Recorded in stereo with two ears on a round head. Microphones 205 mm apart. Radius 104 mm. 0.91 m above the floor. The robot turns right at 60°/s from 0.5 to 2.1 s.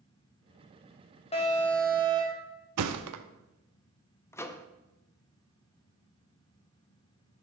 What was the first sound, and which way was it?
An alarm, 150° left.